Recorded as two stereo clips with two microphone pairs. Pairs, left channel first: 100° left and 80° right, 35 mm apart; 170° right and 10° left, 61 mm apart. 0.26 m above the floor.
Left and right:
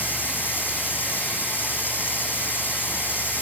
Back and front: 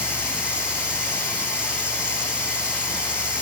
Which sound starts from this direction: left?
Running water, at 0.0 s.